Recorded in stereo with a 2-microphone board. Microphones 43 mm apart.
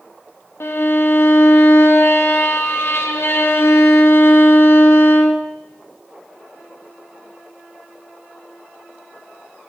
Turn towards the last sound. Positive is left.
turn(degrees=75)  # may be behind; listen again after turning